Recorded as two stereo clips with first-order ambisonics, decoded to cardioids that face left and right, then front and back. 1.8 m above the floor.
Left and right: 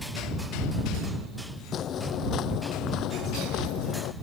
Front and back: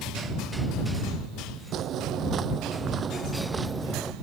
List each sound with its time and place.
1.7 s footsteps: 140° left; by 4.1 s 100° left